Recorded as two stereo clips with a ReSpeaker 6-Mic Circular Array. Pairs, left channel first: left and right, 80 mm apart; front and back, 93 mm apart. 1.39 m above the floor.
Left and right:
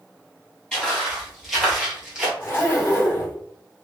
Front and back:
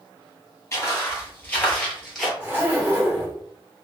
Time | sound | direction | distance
0.7 | footsteps | 20° left | 1.6 m
2.4 | a zipper | 120° left | 1.6 m